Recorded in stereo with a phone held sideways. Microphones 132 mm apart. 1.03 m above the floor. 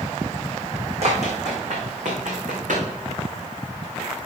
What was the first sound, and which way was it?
Running footsteps, 55° right (ahead or behind).